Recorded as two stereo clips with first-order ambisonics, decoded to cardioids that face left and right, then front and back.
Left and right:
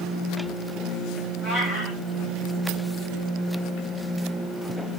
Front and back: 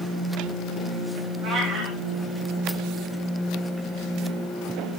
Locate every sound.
1.4 s a cat meowing: 145° left, 7.5 m